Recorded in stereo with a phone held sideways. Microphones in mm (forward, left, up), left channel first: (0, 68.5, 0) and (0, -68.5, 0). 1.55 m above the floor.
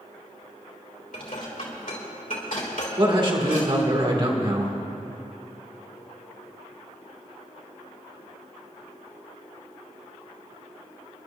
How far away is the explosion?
I don't hear an explosion.